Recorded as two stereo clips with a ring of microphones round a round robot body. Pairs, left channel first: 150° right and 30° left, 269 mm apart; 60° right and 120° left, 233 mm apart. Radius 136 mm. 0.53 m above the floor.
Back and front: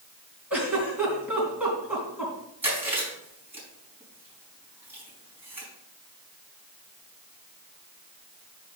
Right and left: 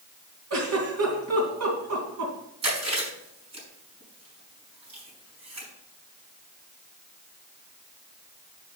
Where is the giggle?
115° left, 3.5 m.